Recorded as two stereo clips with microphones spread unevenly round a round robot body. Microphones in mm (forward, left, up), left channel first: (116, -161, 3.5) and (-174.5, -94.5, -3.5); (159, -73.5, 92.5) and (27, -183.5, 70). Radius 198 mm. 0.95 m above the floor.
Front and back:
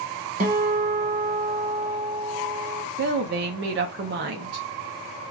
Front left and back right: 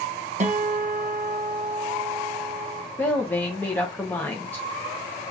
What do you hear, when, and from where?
0.4 s a guitar: 140° right, 1.1 m
3.0 s a woman speaking: 125° left, 0.6 m